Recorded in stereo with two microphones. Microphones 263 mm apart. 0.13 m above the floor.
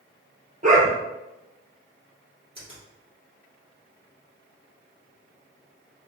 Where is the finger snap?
20° left (ahead or behind), 1.9 m.